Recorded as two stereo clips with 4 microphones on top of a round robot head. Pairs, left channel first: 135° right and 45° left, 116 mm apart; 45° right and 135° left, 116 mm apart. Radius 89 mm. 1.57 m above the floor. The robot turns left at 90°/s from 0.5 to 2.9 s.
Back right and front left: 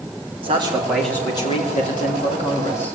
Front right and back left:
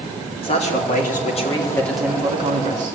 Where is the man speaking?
Straight ahead, 4.5 m; by 3.0 s 145° left, 4.5 m.